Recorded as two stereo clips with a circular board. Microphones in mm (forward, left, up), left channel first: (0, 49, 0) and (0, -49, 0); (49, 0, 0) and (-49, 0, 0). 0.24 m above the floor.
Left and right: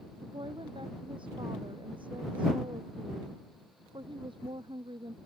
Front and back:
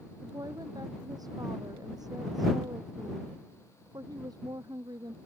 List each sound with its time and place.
0.2 s a woman speaking: 130° right